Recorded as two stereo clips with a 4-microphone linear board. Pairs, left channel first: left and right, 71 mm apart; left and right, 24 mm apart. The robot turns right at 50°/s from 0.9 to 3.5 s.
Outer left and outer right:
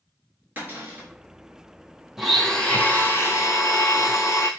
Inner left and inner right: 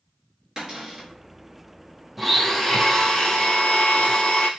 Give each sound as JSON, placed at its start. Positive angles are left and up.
{"t": 0.6, "sound": "a cupboard door", "side_deg": -30, "distance_m": 1.0}
{"t": 2.2, "sound": "a blender", "azimuth_deg": -10, "distance_m": 0.5}